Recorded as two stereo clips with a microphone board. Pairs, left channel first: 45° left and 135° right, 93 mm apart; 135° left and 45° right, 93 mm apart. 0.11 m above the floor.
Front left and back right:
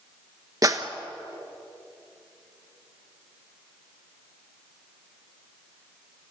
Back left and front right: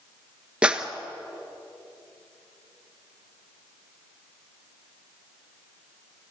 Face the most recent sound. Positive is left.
turn(degrees=-120)